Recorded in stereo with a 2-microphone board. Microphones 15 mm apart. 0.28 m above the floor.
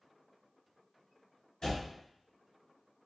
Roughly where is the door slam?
Left.